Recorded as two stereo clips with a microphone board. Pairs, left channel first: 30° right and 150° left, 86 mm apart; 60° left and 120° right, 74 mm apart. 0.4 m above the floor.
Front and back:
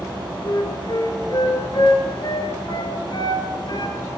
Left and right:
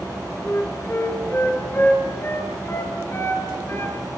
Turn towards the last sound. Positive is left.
turn(degrees=5)